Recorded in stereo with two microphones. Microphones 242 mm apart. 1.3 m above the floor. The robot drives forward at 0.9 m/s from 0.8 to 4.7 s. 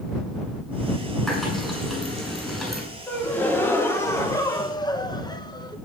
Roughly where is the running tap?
Centre.